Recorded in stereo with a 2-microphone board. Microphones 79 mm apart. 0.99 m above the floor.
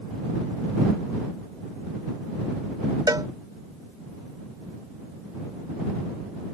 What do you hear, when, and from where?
3.1 s a cowbell: 60° right (ahead or behind)